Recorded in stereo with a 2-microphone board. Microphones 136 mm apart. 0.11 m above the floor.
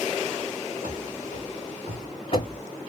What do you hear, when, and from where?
0.8 s running footsteps: 65° left (ahead or behind), 1.5 m; by 2.6 s 35° left (ahead or behind), 0.6 m